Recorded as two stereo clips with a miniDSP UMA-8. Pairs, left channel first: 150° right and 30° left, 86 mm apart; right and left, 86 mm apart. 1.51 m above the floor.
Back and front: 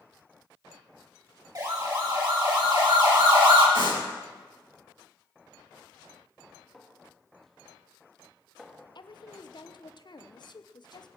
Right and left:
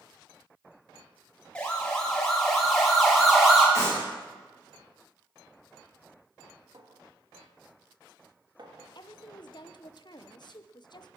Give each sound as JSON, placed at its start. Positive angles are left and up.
{"t": 1.6, "sound": "a siren", "azimuth_deg": -10, "distance_m": 3.5}
{"t": 3.8, "sound": "a clap", "azimuth_deg": 40, "distance_m": 9.0}
{"t": 6.7, "sound": "a clink", "azimuth_deg": 120, "distance_m": 1.9}
{"t": 8.9, "sound": "a woman speaking", "azimuth_deg": -120, "distance_m": 1.0}